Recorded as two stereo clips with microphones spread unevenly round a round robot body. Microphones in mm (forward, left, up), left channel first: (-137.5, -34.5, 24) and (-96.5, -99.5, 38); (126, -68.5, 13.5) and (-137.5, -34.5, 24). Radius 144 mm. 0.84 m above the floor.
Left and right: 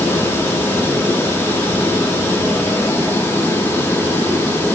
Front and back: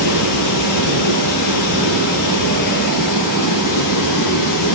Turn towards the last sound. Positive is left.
turn(degrees=25)